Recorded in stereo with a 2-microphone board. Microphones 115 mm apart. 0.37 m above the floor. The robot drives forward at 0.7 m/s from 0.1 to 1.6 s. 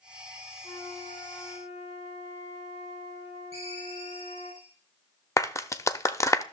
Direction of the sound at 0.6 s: 70° left (ahead or behind).